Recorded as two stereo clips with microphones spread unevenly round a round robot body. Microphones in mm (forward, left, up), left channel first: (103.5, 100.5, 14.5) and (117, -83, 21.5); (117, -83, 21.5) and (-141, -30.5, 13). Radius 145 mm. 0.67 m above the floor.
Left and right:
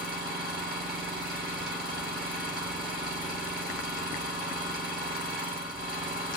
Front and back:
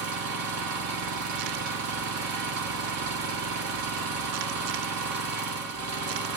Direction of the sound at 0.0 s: 165° left.